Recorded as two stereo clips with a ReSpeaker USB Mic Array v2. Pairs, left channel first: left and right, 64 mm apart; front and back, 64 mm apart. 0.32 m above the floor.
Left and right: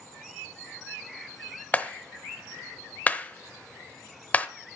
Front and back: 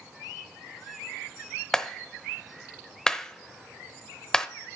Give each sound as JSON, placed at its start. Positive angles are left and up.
{"t": 1.7, "sound": "a clap", "azimuth_deg": 65, "distance_m": 0.7}